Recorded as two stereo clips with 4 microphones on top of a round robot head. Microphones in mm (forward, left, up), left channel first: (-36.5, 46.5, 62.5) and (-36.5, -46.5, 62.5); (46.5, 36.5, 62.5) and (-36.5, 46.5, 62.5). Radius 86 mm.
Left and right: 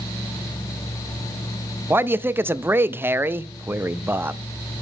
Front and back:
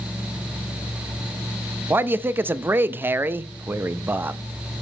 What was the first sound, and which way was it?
A man speaking, 140° right.